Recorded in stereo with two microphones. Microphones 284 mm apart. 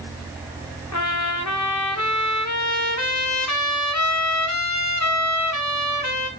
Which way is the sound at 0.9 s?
75° left (ahead or behind).